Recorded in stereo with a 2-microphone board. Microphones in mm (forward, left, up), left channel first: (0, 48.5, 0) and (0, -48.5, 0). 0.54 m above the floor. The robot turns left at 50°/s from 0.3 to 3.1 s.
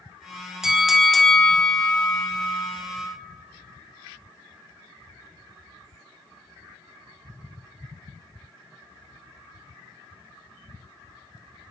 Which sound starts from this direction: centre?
A bell, at 0.6 s.